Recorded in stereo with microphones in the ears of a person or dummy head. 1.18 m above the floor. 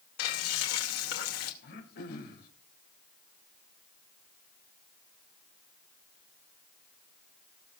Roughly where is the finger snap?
No finger snap in this recording.